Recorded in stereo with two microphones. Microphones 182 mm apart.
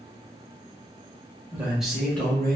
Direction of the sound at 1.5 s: 10° right (ahead or behind).